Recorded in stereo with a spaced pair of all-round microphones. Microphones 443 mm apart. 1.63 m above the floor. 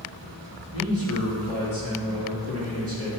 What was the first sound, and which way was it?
A man speaking, 30° right (ahead or behind).